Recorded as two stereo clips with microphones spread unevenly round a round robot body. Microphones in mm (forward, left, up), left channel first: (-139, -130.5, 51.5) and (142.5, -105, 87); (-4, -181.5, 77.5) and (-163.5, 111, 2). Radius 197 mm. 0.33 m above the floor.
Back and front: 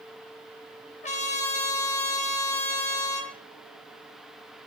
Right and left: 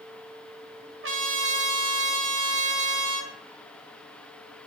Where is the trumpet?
135° left, 1.6 m.